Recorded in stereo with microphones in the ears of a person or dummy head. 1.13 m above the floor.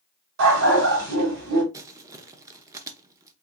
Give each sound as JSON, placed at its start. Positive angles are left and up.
{"t": 0.4, "sound": "a dog barking", "side_deg": -70, "distance_m": 1.9}
{"t": 1.7, "sound": "crumpling", "side_deg": -20, "distance_m": 0.7}